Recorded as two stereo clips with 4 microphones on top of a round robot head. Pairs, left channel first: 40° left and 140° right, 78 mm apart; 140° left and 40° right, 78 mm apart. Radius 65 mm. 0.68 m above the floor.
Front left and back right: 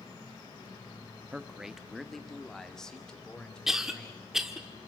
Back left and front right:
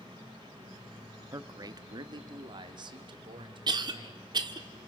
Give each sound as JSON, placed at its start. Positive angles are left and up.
{"t": 1.3, "sound": "a man speaking", "azimuth_deg": -65, "distance_m": 0.9}
{"t": 3.7, "sound": "a cough", "azimuth_deg": -60, "distance_m": 1.8}